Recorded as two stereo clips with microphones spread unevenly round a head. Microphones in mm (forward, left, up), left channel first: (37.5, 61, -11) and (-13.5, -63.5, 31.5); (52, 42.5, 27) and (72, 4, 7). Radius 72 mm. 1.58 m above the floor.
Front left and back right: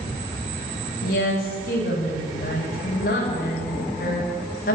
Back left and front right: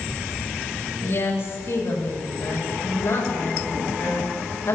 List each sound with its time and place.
1.0 s a woman speaking: 100° left, 9.5 m